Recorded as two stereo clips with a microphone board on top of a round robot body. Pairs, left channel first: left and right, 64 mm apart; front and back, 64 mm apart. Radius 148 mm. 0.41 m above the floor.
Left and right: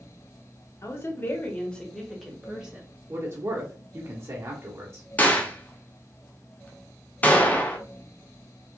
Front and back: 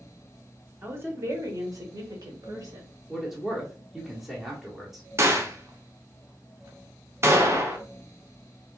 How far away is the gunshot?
About 1.5 m.